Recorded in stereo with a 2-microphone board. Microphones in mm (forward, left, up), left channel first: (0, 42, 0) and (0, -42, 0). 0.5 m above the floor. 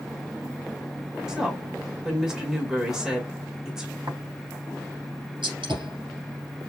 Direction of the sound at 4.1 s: 65° right (ahead or behind).